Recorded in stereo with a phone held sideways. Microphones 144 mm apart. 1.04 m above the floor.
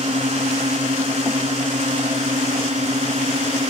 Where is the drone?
45° right (ahead or behind); by 3.7 s 50° right (ahead or behind).